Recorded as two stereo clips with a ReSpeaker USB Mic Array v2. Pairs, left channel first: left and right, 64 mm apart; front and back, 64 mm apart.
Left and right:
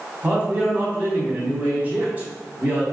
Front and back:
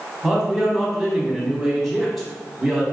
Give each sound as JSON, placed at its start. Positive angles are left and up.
{"t": 0.2, "sound": "a man speaking", "azimuth_deg": -90, "distance_m": 1.1}